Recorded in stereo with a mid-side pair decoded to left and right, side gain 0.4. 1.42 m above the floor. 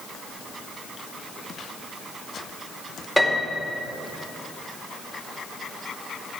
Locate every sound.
3.2 s a piano: 5° left, 2.5 m